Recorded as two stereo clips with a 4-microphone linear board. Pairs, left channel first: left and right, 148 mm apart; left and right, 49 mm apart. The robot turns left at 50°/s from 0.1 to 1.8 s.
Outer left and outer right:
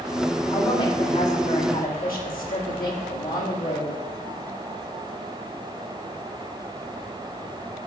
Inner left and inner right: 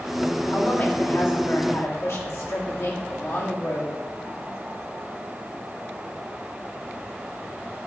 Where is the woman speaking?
160° left, 1.8 m; by 4.0 s 95° left, 1.8 m.